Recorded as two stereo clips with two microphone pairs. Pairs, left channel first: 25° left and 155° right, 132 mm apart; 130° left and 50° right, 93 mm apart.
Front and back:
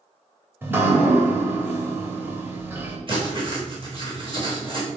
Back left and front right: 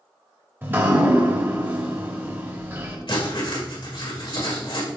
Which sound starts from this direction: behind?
Writing, at 3.1 s.